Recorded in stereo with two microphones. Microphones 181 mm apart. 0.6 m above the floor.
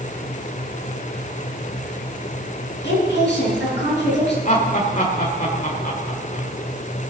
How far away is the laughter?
About 1.7 m.